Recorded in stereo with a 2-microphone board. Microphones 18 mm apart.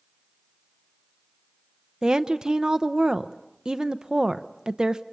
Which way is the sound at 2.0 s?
45° right (ahead or behind).